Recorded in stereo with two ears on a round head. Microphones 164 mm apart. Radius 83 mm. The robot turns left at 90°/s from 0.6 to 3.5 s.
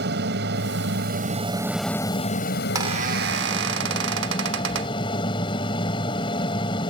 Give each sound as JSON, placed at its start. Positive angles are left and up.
{"t": 0.0, "sound": "an aircraft", "azimuth_deg": -70}
{"t": 2.8, "sound": "a squeak", "azimuth_deg": -20}